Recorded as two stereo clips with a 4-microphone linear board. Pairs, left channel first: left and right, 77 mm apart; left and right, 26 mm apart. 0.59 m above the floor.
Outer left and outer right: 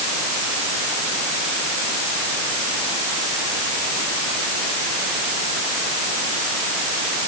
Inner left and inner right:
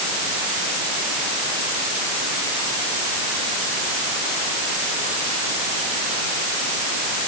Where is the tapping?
I don't hear tapping.